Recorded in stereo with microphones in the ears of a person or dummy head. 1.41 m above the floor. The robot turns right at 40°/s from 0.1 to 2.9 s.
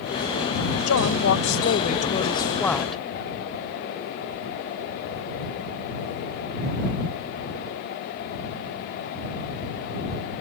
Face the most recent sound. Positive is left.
turn(degrees=180)